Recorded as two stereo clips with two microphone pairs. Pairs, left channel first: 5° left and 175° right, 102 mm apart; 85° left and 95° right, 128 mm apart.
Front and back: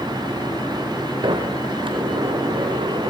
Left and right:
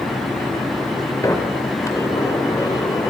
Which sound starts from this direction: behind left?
A sliding door, at 1.2 s.